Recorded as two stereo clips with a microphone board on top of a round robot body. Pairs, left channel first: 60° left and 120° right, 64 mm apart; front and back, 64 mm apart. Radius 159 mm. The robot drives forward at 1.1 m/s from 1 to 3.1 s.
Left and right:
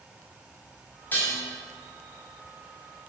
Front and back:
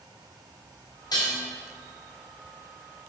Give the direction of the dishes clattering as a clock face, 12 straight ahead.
12 o'clock.